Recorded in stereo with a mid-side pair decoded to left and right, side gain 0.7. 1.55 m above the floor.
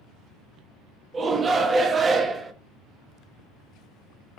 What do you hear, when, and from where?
1.1 s a shout: 25° right, 1.2 m